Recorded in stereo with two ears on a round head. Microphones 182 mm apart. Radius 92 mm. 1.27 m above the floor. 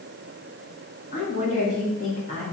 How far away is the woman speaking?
About 3 m.